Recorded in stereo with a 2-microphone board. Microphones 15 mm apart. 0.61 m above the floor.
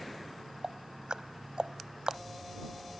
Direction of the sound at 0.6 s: 75° right (ahead or behind).